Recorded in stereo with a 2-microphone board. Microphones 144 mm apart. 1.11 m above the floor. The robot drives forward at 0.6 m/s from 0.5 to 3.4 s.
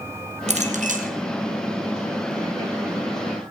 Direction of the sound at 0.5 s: 50° right (ahead or behind).